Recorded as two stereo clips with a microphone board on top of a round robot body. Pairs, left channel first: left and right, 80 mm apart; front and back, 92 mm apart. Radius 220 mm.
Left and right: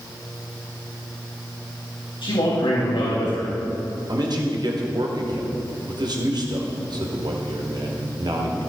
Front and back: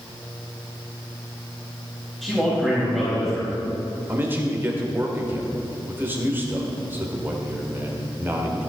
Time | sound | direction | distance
2.2 | a man speaking | 85° left | 4 m
4.1 | a man speaking | 115° right | 2.5 m